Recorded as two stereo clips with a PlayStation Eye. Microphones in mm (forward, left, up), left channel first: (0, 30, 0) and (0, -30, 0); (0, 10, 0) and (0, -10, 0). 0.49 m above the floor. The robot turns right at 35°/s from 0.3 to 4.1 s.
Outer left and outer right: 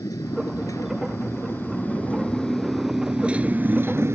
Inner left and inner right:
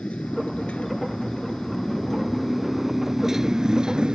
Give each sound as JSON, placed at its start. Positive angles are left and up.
{"t": 0.0, "sound": "a motorcycle", "azimuth_deg": 95}